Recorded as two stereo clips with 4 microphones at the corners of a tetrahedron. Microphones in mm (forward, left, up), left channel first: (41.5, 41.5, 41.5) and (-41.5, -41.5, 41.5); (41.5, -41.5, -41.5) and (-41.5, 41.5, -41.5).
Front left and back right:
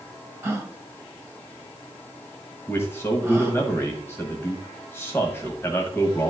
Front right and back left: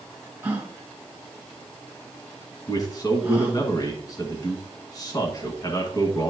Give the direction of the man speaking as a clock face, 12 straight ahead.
12 o'clock.